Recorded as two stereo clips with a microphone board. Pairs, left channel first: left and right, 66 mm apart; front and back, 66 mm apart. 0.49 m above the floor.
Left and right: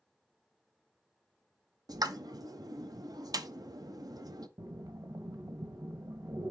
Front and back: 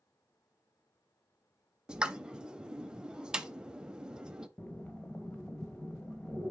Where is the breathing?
65° right, 1.0 m.